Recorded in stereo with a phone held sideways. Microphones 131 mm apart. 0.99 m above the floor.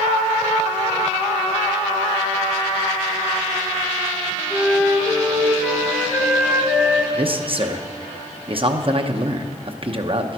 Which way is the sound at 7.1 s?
45° right (ahead or behind).